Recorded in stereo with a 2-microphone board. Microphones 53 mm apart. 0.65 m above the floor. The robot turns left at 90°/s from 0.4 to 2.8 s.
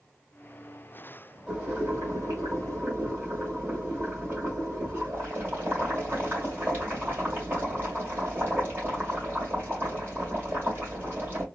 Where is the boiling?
20° right, 2.5 m; by 11.4 s 140° right, 2.5 m.